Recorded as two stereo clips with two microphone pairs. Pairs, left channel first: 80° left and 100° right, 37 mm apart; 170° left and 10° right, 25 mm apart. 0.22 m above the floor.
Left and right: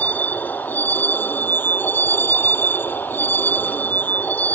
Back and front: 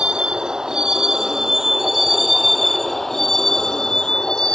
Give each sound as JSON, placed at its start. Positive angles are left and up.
{"t": 0.0, "sound": "a vehicle", "azimuth_deg": 40}